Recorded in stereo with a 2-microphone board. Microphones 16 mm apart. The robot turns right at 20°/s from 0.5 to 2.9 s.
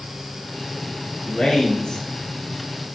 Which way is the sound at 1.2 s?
60° left (ahead or behind).